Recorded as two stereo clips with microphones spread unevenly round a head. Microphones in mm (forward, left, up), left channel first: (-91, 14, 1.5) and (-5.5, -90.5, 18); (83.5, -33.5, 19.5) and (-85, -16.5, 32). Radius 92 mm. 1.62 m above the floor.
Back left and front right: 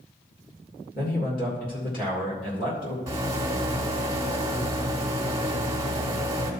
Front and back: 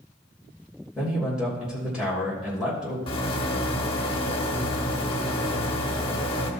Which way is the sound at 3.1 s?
35° right.